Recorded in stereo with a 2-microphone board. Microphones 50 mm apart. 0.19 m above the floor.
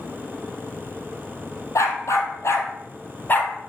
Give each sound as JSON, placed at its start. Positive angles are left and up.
{"t": 1.8, "sound": "a dog barking", "side_deg": 75, "distance_m": 2.5}